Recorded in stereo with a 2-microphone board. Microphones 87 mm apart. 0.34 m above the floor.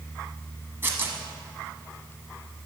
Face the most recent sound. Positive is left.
turn(degrees=-25)  # may be behind; listen again after turning